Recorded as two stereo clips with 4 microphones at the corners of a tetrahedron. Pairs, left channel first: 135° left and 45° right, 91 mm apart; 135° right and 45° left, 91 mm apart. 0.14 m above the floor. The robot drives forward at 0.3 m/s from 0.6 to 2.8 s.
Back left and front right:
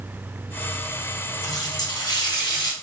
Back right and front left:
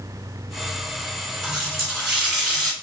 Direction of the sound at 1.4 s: 125° left.